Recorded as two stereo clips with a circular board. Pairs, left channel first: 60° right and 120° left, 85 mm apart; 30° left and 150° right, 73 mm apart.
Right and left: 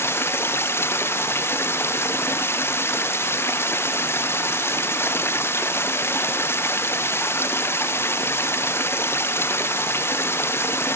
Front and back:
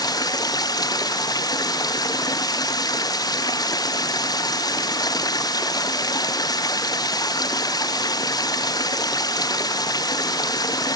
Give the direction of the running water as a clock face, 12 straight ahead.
12 o'clock.